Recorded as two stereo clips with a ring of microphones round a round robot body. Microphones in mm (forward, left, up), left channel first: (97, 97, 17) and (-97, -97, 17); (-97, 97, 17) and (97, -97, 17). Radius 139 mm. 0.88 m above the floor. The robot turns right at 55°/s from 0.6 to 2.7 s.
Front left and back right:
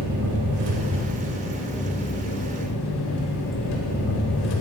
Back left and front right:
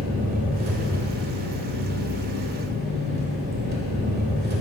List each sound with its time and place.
0.0 s an engine running: 105° right, 1.4 m; by 4.6 s 10° left, 1.4 m